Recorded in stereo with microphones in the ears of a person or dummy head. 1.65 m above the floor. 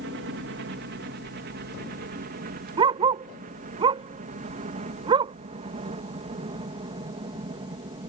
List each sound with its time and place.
0.0 s a helicopter: 60° right (ahead or behind); by 8.1 s 30° right (ahead or behind)
2.8 s a dog barking: 35° right (ahead or behind)